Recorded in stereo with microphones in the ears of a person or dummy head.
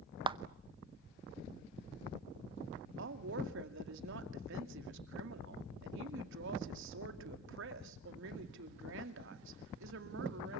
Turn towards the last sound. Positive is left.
turn(degrees=-70)  # may be behind; listen again after turning